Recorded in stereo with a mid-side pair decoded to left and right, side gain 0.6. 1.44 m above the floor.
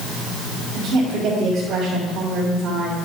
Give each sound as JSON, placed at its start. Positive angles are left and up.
{"t": 0.7, "sound": "a woman speaking", "azimuth_deg": -60, "distance_m": 3.0}